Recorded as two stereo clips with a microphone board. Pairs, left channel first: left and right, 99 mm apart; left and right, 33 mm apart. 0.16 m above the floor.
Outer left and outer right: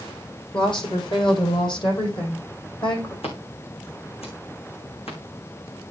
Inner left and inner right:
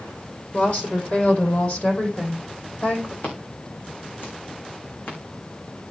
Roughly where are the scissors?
Left.